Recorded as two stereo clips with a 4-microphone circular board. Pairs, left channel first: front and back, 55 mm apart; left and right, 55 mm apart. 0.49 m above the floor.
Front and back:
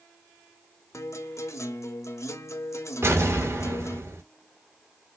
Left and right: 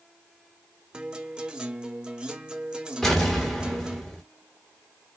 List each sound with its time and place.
0.9 s a guitar: 20° right, 0.7 m
3.0 s an explosion: 175° left, 2 m